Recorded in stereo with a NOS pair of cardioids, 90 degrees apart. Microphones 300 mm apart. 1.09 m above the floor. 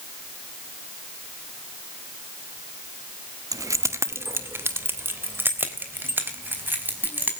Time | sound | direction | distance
3.5 | keys jangling | 10° right | 1.2 m